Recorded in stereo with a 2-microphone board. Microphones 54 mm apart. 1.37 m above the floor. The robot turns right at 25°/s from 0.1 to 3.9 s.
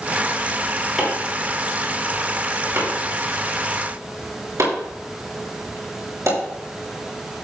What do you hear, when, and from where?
1.0 s chopping: 10° right (ahead or behind), 6 m; by 6.4 s 80° right, 6 m